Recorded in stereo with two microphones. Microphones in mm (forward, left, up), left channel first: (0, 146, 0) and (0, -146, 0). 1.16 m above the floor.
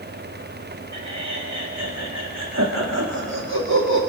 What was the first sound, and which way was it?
Laughter, 75° right (ahead or behind).